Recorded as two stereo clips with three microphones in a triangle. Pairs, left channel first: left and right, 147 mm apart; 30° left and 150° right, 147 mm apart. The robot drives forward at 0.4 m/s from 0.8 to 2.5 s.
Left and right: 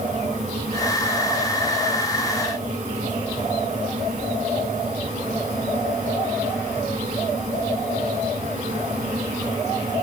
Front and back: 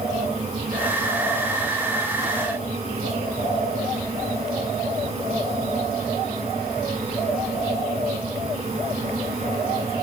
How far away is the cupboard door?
No cupboard door in this recording.